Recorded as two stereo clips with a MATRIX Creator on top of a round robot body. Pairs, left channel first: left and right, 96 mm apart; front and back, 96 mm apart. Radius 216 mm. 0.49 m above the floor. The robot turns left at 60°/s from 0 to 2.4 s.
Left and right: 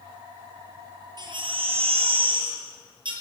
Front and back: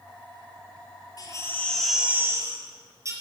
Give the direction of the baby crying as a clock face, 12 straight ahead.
2 o'clock.